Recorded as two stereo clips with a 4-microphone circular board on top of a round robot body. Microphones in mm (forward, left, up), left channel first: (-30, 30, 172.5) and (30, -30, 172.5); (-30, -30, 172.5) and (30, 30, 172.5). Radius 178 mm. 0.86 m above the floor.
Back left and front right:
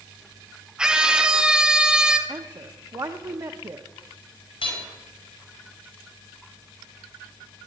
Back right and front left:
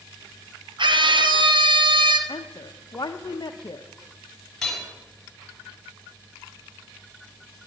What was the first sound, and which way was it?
A scream, 35° left.